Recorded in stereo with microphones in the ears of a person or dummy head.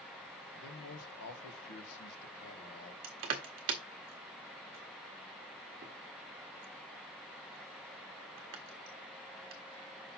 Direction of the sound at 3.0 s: 30° right (ahead or behind).